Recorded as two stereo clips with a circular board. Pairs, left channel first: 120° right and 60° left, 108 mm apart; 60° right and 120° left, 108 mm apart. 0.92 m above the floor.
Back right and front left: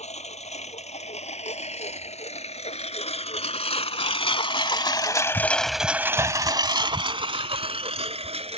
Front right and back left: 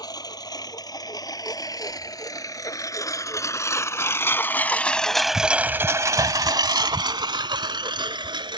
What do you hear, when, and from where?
0.0 s a lawn mower: 115° right; by 8.6 s 75° left